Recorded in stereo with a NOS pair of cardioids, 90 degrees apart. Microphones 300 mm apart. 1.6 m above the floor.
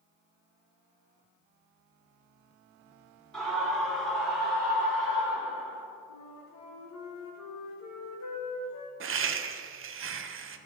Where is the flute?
65° left, 1.6 m.